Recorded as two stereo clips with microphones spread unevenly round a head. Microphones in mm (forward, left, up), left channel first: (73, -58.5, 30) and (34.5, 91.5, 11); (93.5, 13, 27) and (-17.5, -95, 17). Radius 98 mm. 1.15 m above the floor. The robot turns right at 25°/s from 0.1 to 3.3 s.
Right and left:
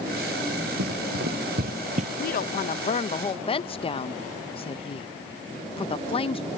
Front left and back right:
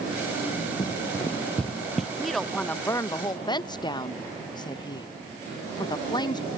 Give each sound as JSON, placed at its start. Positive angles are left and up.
{"t": 0.8, "sound": "running footsteps", "azimuth_deg": 110}
{"t": 2.2, "sound": "a woman speaking", "azimuth_deg": -50}